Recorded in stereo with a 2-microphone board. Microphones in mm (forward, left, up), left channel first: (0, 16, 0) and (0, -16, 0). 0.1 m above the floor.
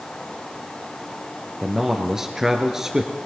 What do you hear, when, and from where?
1.6 s a man speaking: 15° right (ahead or behind), 2 m